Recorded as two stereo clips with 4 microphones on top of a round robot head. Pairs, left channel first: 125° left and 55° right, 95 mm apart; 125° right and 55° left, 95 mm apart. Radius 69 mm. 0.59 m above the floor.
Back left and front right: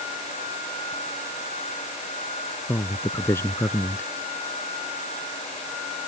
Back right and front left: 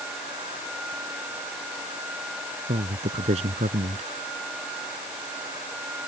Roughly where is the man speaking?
Ahead left.